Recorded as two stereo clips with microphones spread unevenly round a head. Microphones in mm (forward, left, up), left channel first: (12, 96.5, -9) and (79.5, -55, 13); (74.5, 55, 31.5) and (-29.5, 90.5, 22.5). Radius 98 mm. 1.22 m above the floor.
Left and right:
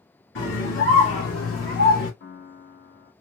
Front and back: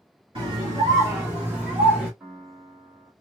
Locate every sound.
0.3 s a scream: 110° left, 2.5 m; by 2.1 s 75° left, 2 m
2.2 s a piano: 85° left, 1.5 m